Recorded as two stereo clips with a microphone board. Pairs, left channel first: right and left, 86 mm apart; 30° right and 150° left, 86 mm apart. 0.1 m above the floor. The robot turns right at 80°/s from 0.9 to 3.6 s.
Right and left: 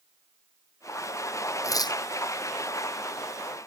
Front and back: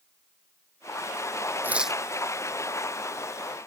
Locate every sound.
1.6 s tearing paper: 145° right; by 2.0 s 115° right